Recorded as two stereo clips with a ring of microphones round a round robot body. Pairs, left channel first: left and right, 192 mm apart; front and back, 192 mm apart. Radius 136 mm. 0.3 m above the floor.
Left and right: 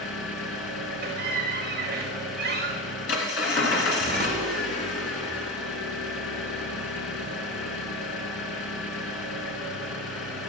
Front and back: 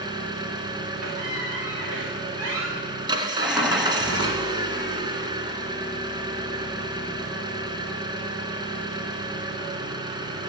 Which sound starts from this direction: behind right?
A squeak, at 1.0 s.